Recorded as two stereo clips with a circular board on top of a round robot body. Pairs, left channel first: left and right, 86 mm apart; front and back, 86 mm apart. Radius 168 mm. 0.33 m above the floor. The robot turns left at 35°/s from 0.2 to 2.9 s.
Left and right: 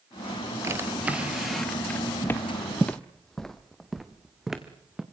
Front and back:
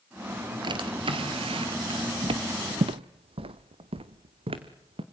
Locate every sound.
0.6 s a drawer: 150° right, 3 m; by 2.1 s 160° left, 3 m
2.2 s footsteps: 155° left, 0.5 m; by 5.0 s 175° right, 2.5 m